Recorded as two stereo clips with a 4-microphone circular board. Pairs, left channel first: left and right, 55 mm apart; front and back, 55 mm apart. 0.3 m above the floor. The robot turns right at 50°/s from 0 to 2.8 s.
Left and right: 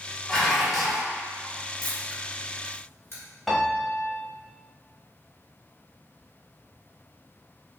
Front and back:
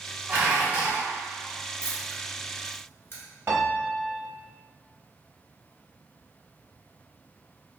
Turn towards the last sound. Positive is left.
turn(degrees=175)